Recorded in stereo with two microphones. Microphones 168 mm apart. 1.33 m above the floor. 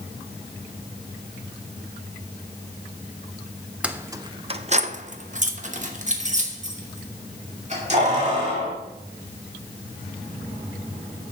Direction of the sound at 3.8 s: 5° right (ahead or behind).